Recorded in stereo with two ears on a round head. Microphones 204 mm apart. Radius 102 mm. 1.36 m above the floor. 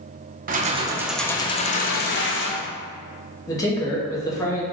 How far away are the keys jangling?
About 0.6 m.